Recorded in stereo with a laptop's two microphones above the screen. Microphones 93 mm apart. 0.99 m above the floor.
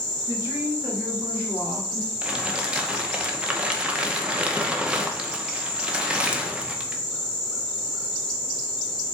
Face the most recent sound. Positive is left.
turn(degrees=-10)  # may be behind; listen again after turning